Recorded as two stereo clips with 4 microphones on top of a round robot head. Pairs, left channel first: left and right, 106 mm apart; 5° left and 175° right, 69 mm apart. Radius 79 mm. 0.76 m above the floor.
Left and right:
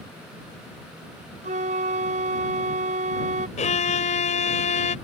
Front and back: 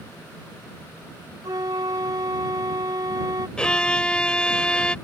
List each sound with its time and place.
1.4 s a flute: 120° right
3.6 s a violin: 80° left